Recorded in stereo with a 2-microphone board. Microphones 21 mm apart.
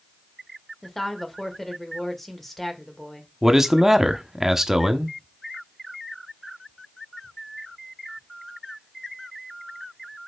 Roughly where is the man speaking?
Centre.